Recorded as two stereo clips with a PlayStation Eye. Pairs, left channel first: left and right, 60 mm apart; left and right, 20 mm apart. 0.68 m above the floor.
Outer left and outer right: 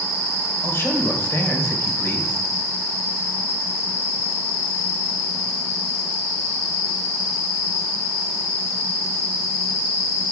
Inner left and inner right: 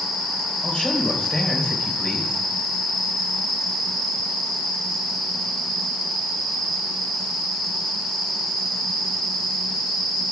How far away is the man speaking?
About 2.5 m.